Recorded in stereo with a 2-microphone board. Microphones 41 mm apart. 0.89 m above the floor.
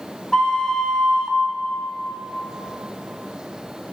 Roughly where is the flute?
Left.